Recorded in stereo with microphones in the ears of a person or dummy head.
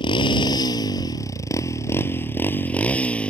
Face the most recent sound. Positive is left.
turn(degrees=5)  # may be behind; listen again after turning